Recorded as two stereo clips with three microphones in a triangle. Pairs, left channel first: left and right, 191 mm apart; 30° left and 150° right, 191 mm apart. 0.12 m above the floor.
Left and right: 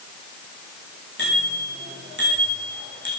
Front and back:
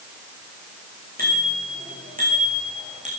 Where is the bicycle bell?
115° right, 8 m; by 3.1 s 100° right, 6.5 m.